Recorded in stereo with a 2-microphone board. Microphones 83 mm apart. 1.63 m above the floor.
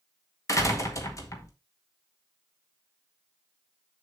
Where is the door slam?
40° left (ahead or behind), 1.7 m.